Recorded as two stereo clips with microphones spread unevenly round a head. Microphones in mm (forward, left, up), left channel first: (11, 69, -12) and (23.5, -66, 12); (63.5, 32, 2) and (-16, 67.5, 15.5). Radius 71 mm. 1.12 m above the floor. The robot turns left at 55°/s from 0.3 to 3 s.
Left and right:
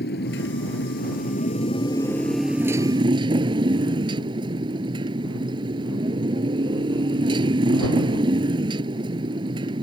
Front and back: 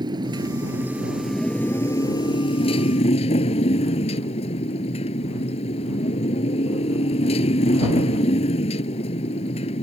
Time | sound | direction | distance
0.0 | a motorcycle | 120° left | ?